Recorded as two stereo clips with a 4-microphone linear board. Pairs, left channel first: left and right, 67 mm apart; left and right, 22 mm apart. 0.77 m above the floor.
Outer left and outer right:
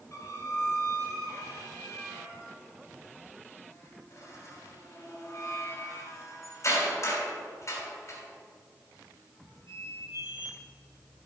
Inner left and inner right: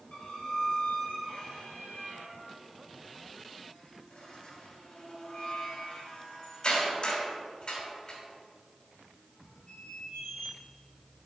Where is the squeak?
50° left (ahead or behind), 3 m.